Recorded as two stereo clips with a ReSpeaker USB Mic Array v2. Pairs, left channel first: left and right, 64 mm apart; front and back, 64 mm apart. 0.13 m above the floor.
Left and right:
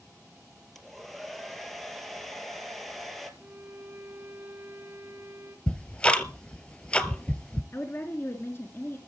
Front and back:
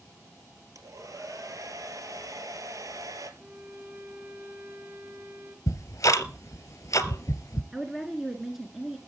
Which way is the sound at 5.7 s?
20° left.